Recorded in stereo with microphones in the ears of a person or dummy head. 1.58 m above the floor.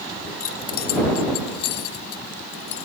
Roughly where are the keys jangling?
Left.